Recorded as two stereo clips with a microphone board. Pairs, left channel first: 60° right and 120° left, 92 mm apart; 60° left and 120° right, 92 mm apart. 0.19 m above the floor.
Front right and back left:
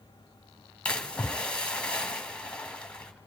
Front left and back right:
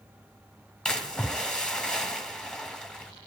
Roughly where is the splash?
Ahead.